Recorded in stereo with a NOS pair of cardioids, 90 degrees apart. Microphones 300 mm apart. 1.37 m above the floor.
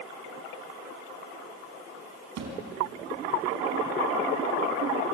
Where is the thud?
65° right, 5 m.